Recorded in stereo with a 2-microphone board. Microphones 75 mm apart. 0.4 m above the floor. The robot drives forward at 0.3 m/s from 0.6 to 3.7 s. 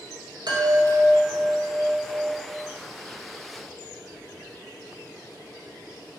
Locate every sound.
0.5 s a chime: 75° right (ahead or behind), 1.3 m; by 2.5 s 55° right (ahead or behind), 1.5 m